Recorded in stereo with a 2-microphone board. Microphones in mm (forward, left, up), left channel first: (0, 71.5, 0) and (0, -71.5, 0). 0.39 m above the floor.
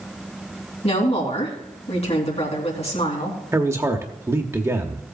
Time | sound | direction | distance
0.8 | a woman speaking | 45° left (ahead or behind) | 3 m
3.5 | a man speaking | 20° right (ahead or behind) | 0.9 m